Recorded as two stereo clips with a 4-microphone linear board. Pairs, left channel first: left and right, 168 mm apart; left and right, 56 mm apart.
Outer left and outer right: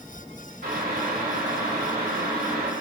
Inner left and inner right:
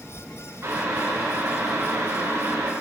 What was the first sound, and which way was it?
Boiling, 60° right (ahead or behind).